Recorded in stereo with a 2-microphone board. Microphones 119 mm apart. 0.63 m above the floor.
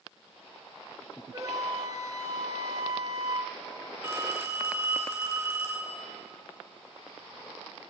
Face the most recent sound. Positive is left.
turn(degrees=-25)  # may be behind; listen again after turning